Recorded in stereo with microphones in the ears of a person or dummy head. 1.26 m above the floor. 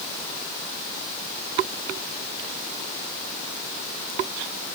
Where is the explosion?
No explosion in this recording.